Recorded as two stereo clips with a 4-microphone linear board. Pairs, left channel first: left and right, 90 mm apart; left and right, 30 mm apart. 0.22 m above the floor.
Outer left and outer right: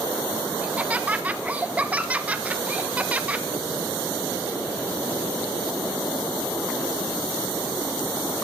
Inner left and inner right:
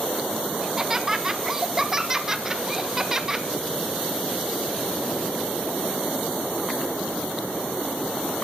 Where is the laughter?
15° right (ahead or behind), 1.3 m.